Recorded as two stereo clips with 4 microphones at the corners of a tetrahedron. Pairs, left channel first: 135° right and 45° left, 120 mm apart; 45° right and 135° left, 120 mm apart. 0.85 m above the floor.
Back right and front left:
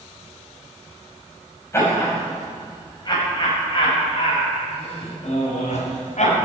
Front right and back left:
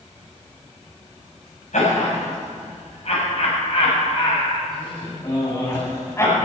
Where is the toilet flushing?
I don't hear a toilet flushing.